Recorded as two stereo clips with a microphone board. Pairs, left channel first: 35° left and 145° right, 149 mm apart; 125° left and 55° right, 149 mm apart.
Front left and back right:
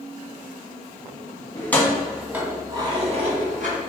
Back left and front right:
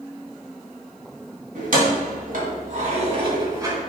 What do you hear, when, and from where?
1.6 s keys jangling: 40° right, 1.9 m; by 3.8 s 125° right, 1.9 m